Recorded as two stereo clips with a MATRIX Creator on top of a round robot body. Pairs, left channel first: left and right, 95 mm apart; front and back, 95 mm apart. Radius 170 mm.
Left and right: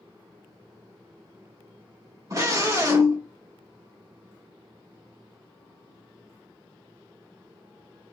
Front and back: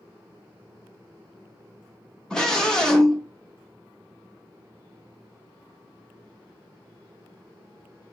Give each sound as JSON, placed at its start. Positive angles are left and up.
{"t": 2.3, "sound": "a scream", "azimuth_deg": -80, "distance_m": 1.7}